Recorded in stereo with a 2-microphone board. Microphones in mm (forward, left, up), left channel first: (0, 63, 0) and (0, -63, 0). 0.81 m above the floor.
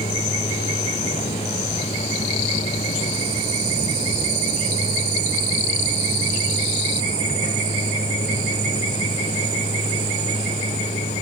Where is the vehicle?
85° left.